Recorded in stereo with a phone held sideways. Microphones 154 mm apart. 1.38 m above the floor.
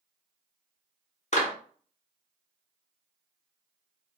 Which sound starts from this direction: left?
A clap, at 1.3 s.